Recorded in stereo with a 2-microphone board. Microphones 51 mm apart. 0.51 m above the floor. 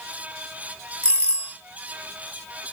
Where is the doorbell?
25° left (ahead or behind), 1.5 m.